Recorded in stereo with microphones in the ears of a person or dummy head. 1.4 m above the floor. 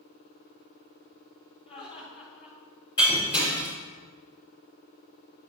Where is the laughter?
30° left (ahead or behind), 4 m.